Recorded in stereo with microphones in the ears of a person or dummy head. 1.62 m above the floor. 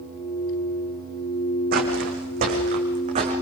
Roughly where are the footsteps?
Right.